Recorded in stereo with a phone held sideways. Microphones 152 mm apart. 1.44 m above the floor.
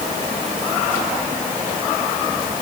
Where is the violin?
No violin in this recording.